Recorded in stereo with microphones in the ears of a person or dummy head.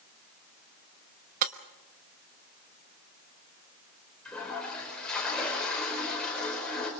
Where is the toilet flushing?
10° left (ahead or behind), 5 m.